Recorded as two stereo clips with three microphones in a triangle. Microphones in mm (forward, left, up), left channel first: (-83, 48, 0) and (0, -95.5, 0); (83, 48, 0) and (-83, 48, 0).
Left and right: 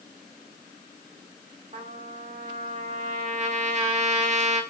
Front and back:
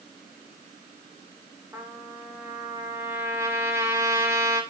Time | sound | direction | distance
1.7 | a trumpet | 105° right | 1.9 m